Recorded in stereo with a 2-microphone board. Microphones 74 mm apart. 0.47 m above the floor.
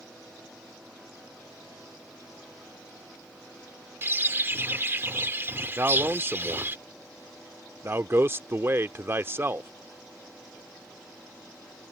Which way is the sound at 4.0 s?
30° right (ahead or behind).